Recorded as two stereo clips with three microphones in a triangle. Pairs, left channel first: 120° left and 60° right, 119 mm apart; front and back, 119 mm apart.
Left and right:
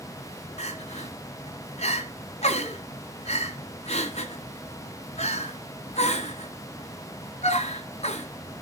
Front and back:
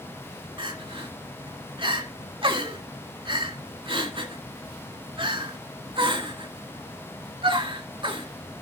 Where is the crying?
140° left, 1.6 m.